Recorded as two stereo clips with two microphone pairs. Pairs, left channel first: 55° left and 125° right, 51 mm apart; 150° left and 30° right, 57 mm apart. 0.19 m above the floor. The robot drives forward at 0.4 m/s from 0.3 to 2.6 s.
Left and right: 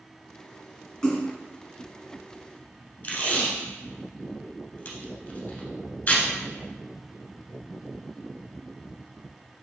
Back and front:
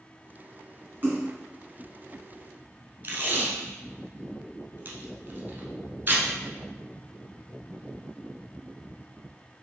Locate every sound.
1.0 s a splash: straight ahead, 1.6 m
3.0 s tape being pulled: 15° left, 0.9 m